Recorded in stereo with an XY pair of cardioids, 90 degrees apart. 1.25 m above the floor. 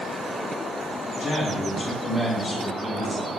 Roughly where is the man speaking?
Ahead left.